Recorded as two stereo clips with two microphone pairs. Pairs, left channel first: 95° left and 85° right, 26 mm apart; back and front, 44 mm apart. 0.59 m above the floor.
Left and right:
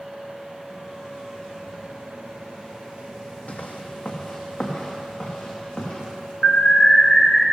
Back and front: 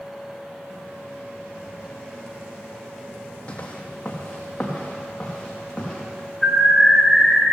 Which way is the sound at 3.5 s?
120° left.